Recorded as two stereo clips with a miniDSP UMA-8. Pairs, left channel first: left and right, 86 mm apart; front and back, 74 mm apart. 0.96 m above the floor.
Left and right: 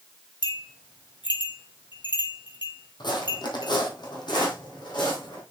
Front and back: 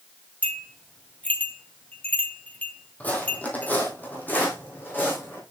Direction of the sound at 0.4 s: 70° left.